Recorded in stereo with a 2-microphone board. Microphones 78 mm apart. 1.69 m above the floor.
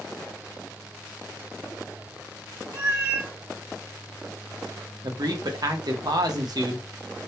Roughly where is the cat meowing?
Right.